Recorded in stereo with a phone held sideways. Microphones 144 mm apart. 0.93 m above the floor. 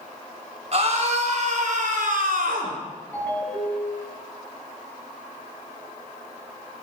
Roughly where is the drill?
I don't hear a drill.